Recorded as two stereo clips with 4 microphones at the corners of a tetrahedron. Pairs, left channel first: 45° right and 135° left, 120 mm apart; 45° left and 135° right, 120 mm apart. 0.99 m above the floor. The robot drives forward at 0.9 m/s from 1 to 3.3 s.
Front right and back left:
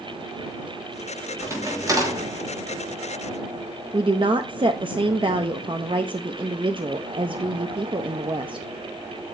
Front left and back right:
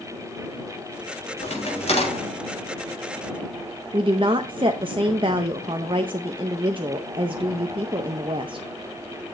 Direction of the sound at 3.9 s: Straight behind.